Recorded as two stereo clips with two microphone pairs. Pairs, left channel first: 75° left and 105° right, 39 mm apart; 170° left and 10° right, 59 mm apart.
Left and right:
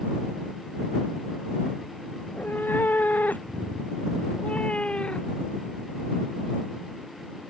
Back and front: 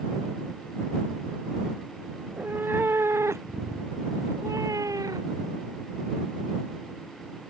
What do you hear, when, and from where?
2.2 s a cat meowing: 50° left; by 5.5 s 10° left